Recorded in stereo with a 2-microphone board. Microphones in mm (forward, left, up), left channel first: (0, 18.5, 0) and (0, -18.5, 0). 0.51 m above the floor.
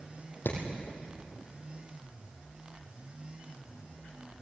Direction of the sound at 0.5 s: 80° left.